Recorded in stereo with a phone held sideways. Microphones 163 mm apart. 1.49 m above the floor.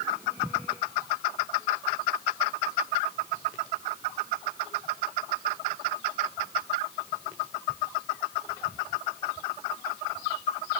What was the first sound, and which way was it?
Only background noise.